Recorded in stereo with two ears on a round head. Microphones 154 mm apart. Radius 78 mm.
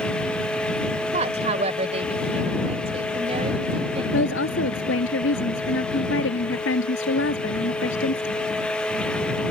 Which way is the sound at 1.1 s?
40° right (ahead or behind).